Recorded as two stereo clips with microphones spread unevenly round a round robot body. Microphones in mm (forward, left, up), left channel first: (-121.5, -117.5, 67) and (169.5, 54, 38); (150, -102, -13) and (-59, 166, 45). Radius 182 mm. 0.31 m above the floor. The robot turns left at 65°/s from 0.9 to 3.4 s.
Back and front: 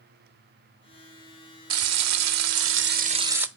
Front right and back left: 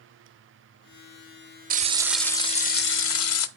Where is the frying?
60° left, 1.0 m; by 3.5 s 50° right, 1.0 m.